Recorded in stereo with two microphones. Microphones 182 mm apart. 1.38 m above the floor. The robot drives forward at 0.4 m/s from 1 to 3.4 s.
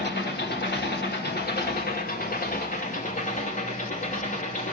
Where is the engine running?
65° left (ahead or behind), 1.8 m; by 4.7 s 45° left (ahead or behind), 2.5 m.